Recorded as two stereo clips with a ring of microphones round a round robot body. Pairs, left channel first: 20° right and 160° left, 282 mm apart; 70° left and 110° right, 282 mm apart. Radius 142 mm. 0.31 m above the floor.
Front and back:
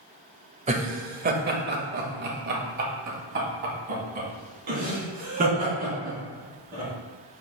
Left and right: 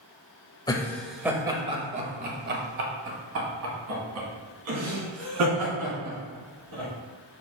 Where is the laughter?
125° left, 0.9 m; by 6.9 s 140° right, 3.5 m.